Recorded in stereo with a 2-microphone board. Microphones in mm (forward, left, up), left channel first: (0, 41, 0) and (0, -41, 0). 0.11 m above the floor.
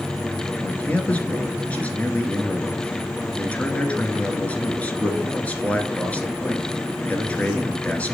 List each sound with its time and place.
0.6 s a man speaking: 15° left (ahead or behind), 1.2 m